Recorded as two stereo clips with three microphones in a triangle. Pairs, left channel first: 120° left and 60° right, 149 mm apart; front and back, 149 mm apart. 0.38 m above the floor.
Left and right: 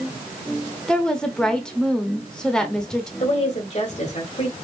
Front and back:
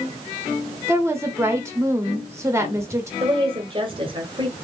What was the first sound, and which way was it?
A woman speaking, 165° right.